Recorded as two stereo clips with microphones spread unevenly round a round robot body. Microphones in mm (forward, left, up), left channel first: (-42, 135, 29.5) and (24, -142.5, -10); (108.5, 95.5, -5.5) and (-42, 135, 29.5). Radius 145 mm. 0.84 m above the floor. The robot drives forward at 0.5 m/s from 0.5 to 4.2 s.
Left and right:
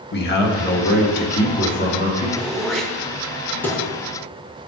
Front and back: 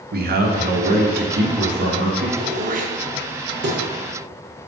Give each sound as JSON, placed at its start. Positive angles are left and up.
{"t": 0.1, "sound": "a man speaking", "azimuth_deg": 160, "distance_m": 1.2}
{"t": 2.4, "sound": "throat clearing", "azimuth_deg": -150, "distance_m": 0.6}